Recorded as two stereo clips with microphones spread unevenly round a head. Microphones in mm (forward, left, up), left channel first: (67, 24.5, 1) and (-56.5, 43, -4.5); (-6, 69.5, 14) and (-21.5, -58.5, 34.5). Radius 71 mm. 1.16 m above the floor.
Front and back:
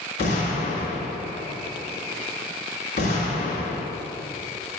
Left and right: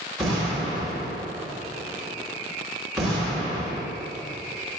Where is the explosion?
10° right, 2 m.